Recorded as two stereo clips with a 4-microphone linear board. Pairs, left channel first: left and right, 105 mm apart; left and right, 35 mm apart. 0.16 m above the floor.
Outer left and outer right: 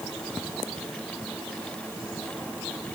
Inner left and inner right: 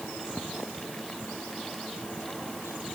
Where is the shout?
I don't hear a shout.